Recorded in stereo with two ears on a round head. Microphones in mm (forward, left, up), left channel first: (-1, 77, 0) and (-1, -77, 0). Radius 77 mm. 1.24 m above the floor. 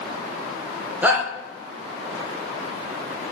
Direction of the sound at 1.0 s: 10° right (ahead or behind).